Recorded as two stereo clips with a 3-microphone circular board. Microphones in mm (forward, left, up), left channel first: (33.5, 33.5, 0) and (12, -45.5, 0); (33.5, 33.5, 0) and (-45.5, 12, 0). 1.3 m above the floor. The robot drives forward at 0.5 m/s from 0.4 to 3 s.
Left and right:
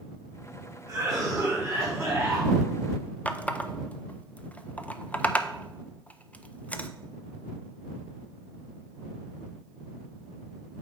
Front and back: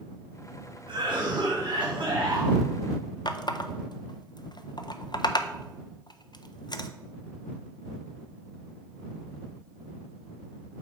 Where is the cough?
170° right, 2 m.